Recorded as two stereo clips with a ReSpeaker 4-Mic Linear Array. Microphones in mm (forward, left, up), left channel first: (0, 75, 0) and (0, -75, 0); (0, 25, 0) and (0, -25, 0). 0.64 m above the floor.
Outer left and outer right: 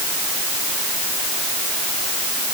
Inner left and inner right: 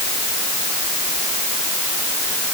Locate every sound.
Only background noise.